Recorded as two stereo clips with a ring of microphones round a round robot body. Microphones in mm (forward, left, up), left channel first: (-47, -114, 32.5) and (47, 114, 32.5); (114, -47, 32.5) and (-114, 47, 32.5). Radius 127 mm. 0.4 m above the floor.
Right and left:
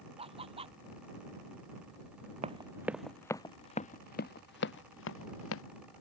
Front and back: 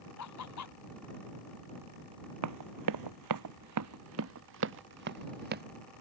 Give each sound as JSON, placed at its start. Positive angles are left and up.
{"t": 0.2, "sound": "laughter", "azimuth_deg": 0}
{"t": 2.4, "sound": "running footsteps", "azimuth_deg": 135}